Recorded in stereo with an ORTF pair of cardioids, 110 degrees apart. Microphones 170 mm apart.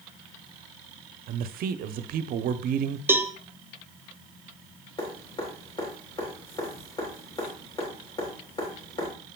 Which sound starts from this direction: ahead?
A cowbell, at 3.1 s.